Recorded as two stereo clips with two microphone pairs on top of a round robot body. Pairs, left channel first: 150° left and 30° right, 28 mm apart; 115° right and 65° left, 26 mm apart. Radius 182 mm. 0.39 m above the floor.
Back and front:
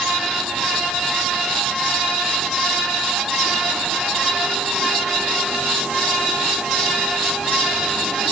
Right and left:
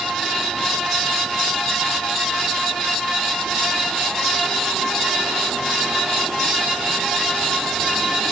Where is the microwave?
I don't hear a microwave.